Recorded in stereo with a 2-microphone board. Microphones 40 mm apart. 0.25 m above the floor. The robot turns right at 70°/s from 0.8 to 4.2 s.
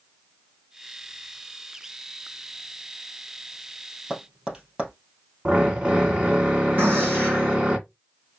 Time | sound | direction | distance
4.1 | tapping | 15° right (ahead or behind) | 2.5 m
5.5 | a drill | 30° right (ahead or behind) | 1.9 m
6.8 | a gunshot | 55° right (ahead or behind) | 3 m